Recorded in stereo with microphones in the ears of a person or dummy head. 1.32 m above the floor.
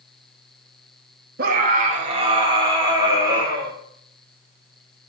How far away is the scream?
About 2.5 m.